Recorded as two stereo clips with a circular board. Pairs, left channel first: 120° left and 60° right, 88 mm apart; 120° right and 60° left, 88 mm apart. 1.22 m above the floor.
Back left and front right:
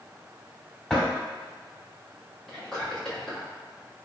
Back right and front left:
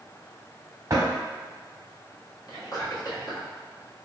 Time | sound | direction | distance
0.9 | a drawer | 35° left | 0.9 m
2.5 | whispering | 155° right | 1.3 m